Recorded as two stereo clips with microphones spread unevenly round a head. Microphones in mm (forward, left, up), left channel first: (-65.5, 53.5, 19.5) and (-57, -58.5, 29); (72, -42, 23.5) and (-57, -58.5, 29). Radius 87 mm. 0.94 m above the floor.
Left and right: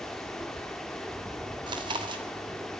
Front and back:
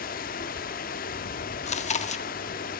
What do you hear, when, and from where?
0.0 s running water: 5° left, 1.0 m
1.7 s chewing: 25° right, 1.4 m